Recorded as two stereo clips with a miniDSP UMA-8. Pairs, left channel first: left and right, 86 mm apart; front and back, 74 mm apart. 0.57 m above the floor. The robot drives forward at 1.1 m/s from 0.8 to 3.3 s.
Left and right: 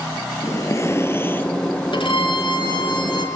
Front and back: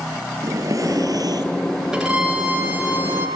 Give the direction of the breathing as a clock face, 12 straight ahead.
7 o'clock.